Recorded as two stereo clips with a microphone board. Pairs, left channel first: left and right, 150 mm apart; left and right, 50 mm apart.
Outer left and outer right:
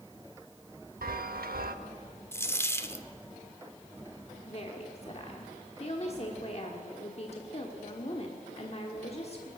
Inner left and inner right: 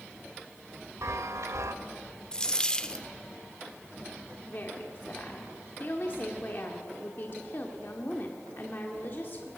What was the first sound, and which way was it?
A chime, 80° right.